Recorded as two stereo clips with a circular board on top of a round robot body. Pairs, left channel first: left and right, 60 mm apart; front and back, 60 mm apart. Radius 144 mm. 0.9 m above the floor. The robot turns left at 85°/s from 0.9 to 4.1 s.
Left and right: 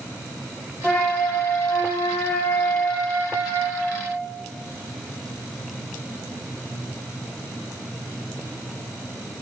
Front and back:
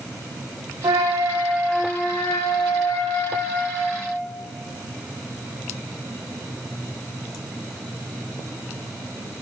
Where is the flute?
165° left, 2.5 m; by 4.1 s 105° right, 2.5 m.